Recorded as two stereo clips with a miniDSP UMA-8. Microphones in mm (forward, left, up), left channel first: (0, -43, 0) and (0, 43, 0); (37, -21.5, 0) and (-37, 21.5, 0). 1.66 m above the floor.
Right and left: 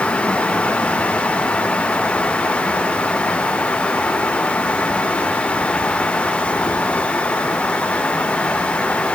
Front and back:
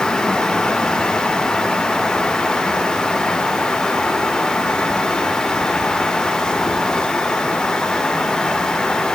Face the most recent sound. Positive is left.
No sound to turn to.